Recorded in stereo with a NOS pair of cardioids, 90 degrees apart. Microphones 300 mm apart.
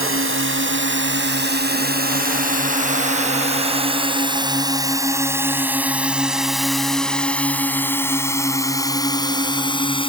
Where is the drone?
45° right; by 10.1 s 15° left.